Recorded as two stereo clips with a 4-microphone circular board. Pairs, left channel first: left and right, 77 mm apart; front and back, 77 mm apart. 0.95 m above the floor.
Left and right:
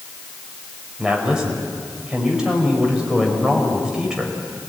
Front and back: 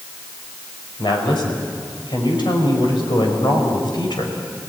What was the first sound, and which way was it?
A woman speaking, 10° right.